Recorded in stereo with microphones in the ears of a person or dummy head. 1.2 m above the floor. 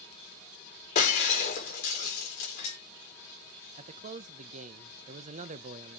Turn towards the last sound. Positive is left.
turn(degrees=-40)  # may be behind; listen again after turning